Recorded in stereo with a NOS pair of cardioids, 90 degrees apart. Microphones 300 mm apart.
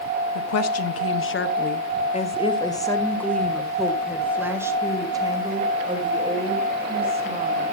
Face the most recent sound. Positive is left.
turn(degrees=-20)